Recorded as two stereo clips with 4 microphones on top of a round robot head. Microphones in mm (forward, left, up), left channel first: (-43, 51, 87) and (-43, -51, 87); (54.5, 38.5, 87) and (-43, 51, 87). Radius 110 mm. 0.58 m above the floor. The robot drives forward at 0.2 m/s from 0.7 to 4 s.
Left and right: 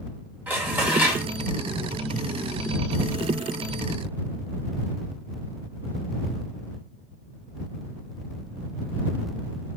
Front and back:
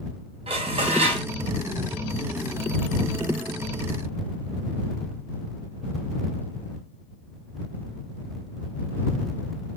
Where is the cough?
No cough in this recording.